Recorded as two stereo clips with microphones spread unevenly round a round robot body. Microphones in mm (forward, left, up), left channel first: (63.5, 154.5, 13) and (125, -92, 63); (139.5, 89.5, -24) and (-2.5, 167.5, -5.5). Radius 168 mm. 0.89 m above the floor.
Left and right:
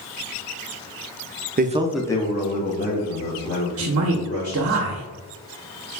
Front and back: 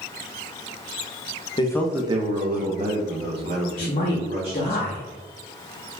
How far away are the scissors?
No scissors in this recording.